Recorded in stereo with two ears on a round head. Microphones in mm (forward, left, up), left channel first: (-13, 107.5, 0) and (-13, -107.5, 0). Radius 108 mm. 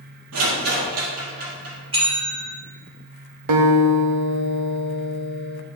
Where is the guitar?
75° right (ahead or behind), 1.0 m.